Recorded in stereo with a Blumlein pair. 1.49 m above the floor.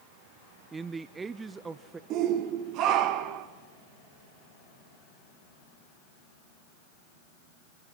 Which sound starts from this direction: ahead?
A man speaking, at 0.7 s.